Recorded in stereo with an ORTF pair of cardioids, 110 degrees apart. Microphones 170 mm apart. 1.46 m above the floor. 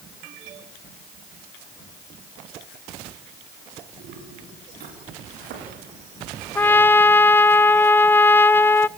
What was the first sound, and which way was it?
Footsteps, 70° right.